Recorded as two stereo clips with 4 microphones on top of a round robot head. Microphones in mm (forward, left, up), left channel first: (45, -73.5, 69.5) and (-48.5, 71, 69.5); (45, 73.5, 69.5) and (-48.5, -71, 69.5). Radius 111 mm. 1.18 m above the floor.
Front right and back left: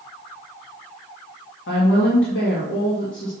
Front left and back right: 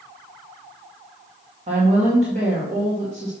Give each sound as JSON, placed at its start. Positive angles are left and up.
{"t": 1.7, "sound": "a woman speaking", "azimuth_deg": -70, "distance_m": 2.0}